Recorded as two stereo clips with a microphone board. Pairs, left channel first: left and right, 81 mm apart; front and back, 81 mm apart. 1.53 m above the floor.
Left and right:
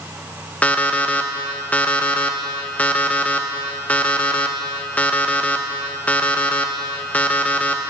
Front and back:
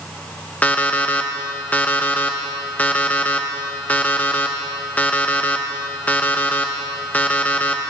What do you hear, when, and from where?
0.6 s an alarm clock: 40° left, 0.7 m